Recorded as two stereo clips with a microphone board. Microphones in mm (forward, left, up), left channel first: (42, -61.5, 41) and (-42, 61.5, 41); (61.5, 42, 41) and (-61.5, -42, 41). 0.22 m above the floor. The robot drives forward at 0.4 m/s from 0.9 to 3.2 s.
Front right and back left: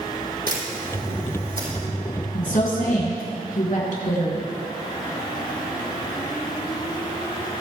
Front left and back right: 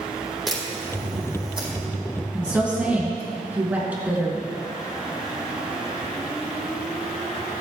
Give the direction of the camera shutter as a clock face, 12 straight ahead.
8 o'clock.